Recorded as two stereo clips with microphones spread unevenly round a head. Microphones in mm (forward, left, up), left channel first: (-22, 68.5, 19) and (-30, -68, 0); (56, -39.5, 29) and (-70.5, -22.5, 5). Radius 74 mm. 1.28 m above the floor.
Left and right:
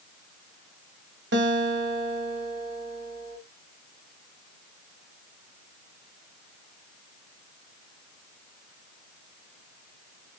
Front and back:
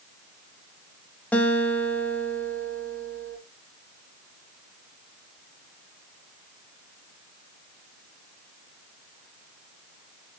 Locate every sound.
1.3 s a guitar: 80° right, 2.5 m